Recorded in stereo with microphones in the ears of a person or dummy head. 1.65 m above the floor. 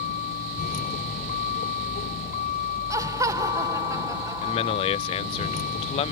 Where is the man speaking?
30° left (ahead or behind).